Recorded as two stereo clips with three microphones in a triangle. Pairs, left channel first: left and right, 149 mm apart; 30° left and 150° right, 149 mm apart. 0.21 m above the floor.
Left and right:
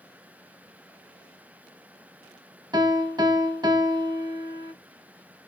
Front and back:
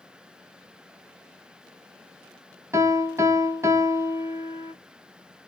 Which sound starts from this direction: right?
A piano, at 2.7 s.